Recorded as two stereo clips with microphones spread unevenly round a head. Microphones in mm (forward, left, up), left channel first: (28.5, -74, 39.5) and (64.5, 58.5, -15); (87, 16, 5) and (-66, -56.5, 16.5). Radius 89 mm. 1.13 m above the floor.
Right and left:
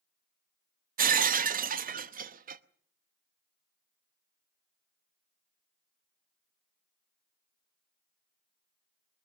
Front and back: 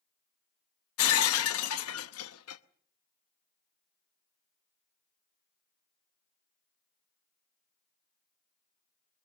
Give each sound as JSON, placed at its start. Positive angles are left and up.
{"t": 1.0, "sound": "breaking glass", "azimuth_deg": 40, "distance_m": 0.9}